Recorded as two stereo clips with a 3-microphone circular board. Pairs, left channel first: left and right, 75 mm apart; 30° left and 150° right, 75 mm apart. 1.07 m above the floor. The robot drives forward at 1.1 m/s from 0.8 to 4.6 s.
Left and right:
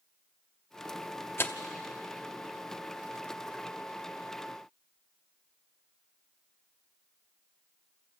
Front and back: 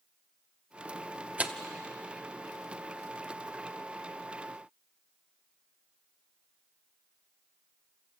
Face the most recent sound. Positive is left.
turn(degrees=175)